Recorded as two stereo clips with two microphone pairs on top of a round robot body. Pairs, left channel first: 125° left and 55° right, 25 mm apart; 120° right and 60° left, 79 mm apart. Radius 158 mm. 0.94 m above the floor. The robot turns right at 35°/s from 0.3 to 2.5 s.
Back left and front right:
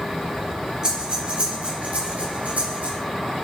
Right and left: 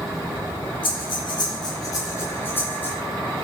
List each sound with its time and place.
0.8 s breathing: 115° right, 4.5 m; by 3.0 s 55° right, 4.5 m